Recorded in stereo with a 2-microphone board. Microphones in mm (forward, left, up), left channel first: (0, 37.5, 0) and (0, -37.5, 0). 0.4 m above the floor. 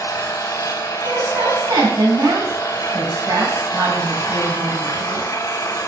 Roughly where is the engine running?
Left.